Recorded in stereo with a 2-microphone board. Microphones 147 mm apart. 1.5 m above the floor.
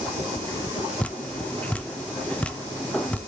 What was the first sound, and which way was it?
Dripping, 10° left (ahead or behind).